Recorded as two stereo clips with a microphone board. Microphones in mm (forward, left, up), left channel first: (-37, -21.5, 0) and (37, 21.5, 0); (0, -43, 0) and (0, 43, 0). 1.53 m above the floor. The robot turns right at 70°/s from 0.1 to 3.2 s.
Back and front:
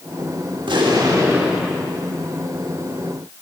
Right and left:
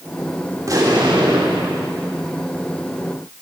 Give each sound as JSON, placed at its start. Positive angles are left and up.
{"t": 0.6, "sound": "an explosion", "azimuth_deg": 35, "distance_m": 4.5}